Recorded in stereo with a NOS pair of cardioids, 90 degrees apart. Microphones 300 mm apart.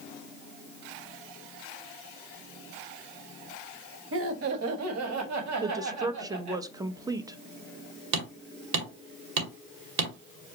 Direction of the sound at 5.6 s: 10° right.